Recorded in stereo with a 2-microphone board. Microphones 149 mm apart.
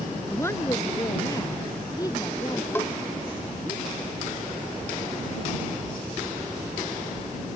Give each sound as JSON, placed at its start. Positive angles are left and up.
{"t": 0.3, "sound": "a woman speaking", "side_deg": 15}
{"t": 2.8, "sound": "a bell", "side_deg": 15}